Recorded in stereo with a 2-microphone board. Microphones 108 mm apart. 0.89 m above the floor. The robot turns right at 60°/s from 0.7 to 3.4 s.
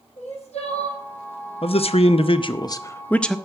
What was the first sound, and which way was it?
Crying, 75° left (ahead or behind).